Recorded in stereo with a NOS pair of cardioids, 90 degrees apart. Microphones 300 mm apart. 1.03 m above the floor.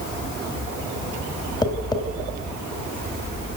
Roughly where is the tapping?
Ahead.